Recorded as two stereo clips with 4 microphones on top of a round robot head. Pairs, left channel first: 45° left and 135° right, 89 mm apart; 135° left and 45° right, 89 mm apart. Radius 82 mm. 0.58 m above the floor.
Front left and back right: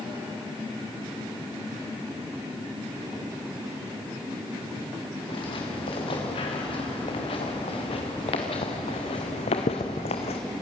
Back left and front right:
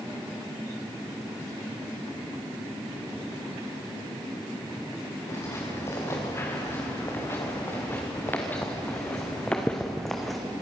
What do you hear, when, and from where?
5.3 s footsteps: 75° left, 7 m; by 10.4 s 45° left, 2.5 m